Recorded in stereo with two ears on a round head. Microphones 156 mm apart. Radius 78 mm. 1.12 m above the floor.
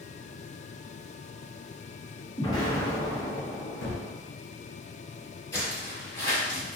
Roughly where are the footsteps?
Centre.